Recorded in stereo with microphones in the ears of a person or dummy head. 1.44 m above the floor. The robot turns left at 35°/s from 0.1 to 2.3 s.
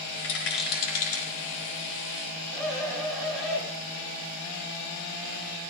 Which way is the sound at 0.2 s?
75° left (ahead or behind).